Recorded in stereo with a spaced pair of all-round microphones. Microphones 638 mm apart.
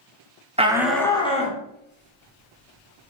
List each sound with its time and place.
0.6 s a shout: 10° right (ahead or behind), 0.5 m; by 3.1 s 20° left (ahead or behind), 1.7 m